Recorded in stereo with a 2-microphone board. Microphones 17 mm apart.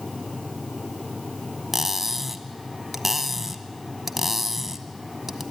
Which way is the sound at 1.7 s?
10° right (ahead or behind).